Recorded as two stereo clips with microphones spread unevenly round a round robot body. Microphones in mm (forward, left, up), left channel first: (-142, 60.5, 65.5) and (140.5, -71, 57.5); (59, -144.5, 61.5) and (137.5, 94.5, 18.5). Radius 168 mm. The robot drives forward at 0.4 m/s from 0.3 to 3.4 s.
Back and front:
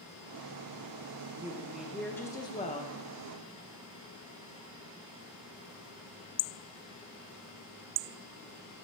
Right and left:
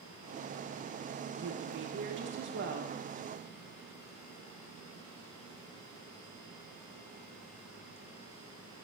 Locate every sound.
1.3 s a woman speaking: 50° left, 1.1 m; by 3.0 s 95° left, 0.9 m